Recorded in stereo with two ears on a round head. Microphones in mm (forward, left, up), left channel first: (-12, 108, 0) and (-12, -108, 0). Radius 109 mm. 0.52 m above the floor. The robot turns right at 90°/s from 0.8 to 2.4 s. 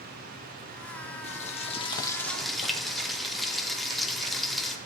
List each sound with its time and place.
1.2 s frying: 25° left (ahead or behind), 0.9 m; by 4.8 s centre (ahead or behind), 0.9 m